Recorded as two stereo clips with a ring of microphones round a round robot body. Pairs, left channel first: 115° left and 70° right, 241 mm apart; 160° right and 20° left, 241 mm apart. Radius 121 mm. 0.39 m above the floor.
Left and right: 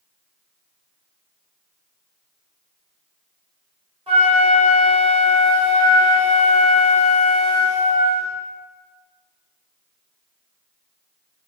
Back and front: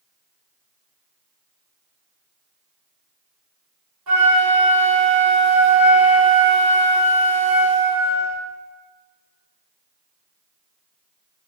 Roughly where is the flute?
Ahead.